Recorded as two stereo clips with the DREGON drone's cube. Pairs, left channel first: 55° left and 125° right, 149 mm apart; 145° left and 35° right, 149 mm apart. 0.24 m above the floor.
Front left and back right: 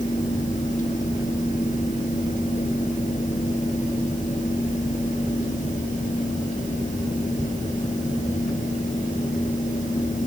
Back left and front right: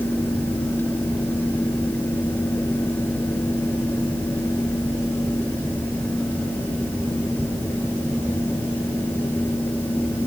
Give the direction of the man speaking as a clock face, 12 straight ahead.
No man speaking in this recording.